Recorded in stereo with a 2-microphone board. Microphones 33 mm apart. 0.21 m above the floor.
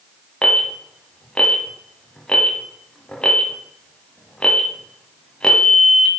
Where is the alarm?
30° left (ahead or behind), 1.2 m.